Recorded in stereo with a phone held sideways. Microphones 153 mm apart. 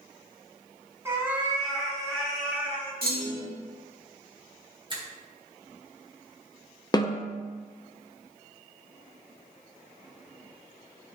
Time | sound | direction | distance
1.1 | a cat meowing | 20° right (ahead or behind) | 1.7 m
3.0 | a clunk | 80° right | 1.7 m
4.9 | a finger snap | 30° right (ahead or behind) | 1.5 m
6.9 | a snare drum | 25° left (ahead or behind) | 0.6 m